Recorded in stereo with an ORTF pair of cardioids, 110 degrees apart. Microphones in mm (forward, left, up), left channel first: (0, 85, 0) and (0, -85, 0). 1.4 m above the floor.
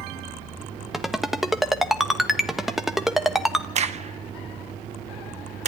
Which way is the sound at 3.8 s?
40° right.